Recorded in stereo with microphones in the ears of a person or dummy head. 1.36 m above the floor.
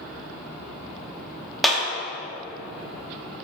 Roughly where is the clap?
Centre.